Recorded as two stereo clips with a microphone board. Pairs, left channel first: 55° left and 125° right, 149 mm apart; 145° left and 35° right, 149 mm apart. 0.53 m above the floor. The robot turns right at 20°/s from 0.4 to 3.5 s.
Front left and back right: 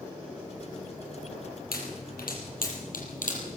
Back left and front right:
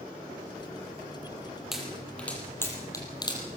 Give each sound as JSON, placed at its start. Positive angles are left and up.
{"t": 1.7, "sound": "a pop", "azimuth_deg": 55, "distance_m": 6.0}